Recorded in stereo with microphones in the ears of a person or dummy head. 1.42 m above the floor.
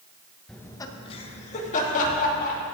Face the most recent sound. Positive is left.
turn(degrees=45)  # may be behind; listen again after turning